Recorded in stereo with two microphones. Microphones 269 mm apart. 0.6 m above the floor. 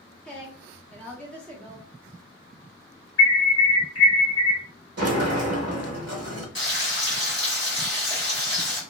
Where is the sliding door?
65° right (ahead or behind), 0.6 m.